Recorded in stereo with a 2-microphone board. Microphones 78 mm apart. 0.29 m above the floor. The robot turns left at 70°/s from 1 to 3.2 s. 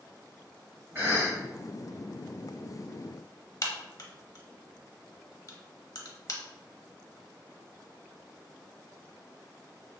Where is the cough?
30° right (ahead or behind), 1.9 m; by 1.4 s 35° right (ahead or behind), 1.9 m.